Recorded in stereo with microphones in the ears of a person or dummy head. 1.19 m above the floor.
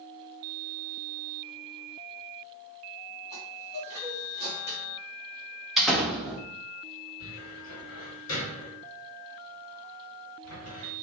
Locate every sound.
3.3 s a chime: 50° left (ahead or behind), 2 m
5.8 s a door slam: centre (ahead or behind), 0.9 m
7.2 s a cupboard door: 85° left, 1.7 m